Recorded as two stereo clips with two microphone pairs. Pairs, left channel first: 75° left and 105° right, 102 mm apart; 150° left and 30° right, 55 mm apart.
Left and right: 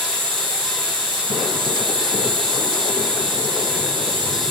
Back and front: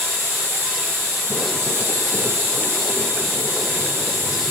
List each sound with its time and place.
0.0 s an insect: 80° right, 5 m